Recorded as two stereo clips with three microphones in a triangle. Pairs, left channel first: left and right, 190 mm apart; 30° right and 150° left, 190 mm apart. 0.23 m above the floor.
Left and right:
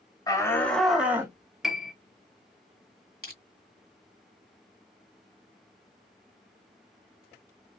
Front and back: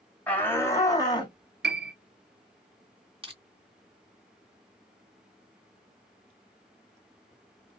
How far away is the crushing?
About 2 m.